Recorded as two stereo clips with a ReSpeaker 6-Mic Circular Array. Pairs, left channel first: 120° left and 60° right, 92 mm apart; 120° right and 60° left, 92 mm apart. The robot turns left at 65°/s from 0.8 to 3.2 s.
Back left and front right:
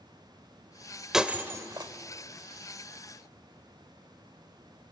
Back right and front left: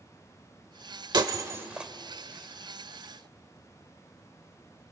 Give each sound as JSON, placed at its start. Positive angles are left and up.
{"t": 1.1, "sound": "breaking glass", "azimuth_deg": 25, "distance_m": 1.0}